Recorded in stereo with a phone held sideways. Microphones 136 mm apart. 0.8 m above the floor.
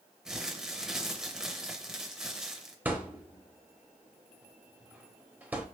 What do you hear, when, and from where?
0.2 s crumpling: 5° right (ahead or behind), 0.6 m
2.9 s a thud: 15° right (ahead or behind), 0.6 m